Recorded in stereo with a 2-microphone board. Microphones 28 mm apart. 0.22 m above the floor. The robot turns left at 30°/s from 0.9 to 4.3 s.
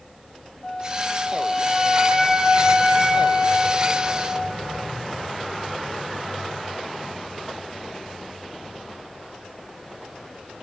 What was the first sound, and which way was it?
A flute, 15° left.